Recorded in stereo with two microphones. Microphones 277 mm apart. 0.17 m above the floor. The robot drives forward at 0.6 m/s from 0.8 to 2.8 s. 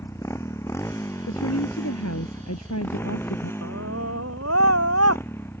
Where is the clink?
No clink in this recording.